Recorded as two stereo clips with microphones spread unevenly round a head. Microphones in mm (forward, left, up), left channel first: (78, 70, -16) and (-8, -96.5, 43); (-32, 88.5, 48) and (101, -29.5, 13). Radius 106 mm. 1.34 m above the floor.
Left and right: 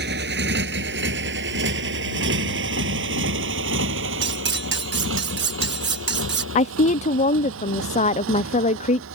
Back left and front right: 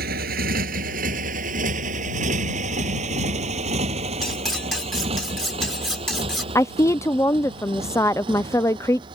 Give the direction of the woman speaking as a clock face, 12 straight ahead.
10 o'clock.